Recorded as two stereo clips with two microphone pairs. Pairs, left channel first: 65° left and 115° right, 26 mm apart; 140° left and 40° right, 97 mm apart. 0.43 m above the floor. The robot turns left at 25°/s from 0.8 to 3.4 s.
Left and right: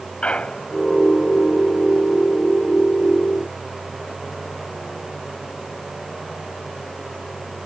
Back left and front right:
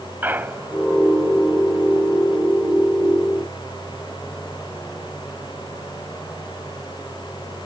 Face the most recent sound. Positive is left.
turn(degrees=-35)